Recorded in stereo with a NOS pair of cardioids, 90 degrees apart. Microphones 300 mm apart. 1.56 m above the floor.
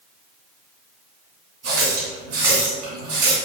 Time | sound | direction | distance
1.6 | a running tap | 60° right | 1.9 m